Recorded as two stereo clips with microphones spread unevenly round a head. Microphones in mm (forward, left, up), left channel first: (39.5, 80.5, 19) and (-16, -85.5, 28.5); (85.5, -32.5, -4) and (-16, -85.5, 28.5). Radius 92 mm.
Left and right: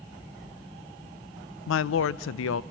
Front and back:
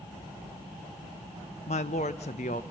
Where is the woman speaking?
75° left, 0.6 m.